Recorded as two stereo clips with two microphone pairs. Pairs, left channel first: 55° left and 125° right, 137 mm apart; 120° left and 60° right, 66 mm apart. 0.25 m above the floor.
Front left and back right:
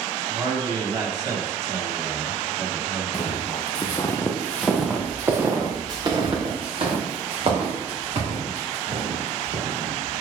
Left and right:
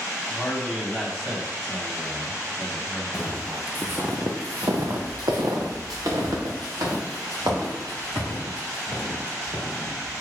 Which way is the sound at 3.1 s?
15° left.